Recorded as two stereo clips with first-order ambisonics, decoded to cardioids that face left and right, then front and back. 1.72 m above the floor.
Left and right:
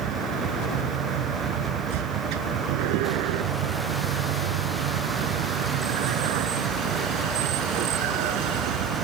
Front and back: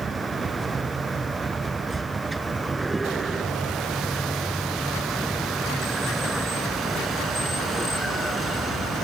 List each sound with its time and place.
0.0 s a vehicle: 110° right; by 9.1 s 80° right